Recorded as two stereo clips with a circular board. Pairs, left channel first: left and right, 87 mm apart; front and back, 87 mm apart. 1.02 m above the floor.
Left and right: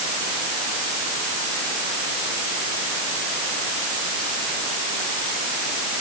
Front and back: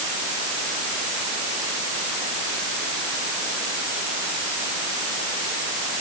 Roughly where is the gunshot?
No gunshot in this recording.